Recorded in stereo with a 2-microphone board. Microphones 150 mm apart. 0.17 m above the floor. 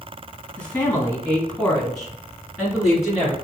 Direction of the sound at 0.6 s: 10° left (ahead or behind).